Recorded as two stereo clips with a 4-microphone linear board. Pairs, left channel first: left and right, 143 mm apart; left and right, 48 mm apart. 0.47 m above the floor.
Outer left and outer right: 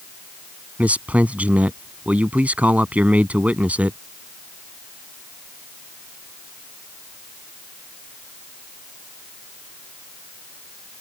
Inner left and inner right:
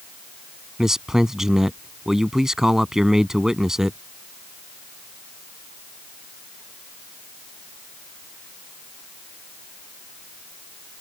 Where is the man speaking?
10° right (ahead or behind).